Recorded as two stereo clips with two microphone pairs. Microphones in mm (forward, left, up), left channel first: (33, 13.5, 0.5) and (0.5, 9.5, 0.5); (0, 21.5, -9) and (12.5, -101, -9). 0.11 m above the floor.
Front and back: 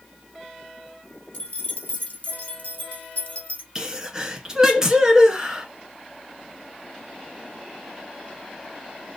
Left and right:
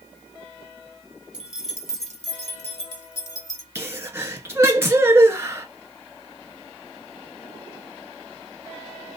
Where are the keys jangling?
5° right, 1.4 m; by 3.6 s 40° left, 1.9 m.